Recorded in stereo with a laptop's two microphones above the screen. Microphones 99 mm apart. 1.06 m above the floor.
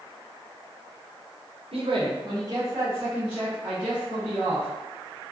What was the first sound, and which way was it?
A man speaking, 75° right (ahead or behind).